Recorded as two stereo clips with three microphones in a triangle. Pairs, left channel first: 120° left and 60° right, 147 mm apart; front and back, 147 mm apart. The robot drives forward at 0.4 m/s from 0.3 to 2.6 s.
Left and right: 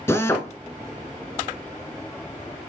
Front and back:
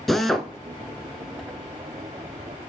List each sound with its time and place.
0.1 s a drill: 85° left, 0.8 m; by 0.5 s 100° left, 0.8 m